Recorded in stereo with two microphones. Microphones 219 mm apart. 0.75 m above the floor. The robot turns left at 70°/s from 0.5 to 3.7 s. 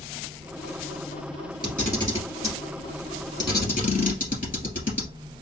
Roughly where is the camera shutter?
Centre.